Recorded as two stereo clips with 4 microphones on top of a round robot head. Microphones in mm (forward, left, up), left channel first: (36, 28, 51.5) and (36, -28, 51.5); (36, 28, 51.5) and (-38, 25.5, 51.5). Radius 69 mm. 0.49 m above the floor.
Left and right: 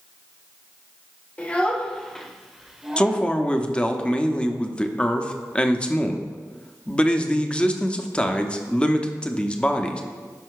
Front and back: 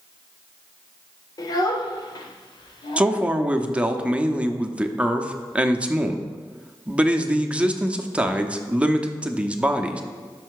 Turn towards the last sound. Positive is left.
turn(degrees=130)